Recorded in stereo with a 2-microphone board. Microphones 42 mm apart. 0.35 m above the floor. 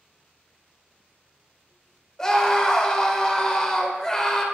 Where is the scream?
20° left (ahead or behind), 0.8 m.